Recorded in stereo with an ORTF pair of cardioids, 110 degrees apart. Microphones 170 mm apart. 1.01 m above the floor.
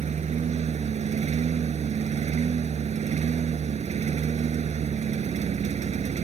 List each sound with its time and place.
0.0 s a lawn mower: 40° right